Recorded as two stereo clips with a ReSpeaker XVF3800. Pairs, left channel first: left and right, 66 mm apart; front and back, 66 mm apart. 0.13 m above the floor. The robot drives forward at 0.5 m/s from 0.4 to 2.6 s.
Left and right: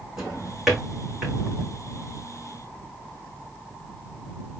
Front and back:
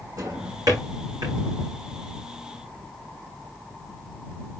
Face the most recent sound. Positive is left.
turn(degrees=-175)